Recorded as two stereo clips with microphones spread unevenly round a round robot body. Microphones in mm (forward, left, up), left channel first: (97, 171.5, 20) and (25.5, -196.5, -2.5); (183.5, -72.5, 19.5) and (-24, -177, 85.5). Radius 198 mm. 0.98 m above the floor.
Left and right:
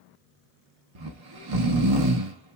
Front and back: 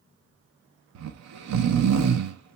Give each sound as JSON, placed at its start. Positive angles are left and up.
{"t": 0.9, "sound": "snoring", "azimuth_deg": -140, "distance_m": 0.6}